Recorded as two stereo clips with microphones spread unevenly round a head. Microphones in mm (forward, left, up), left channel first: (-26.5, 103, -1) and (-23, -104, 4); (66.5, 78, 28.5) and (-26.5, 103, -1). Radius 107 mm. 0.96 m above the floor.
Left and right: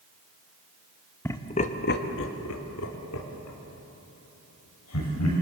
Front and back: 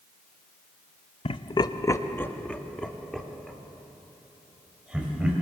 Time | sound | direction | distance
1.2 | laughter | 15° left | 1.3 m